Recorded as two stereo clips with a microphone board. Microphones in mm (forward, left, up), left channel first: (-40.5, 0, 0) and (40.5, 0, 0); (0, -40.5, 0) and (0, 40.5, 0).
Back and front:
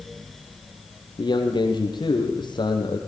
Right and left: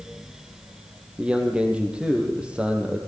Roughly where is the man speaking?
Behind.